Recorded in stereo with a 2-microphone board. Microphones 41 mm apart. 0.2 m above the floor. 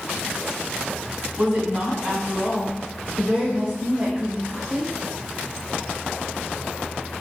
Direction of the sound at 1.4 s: 30° right (ahead or behind).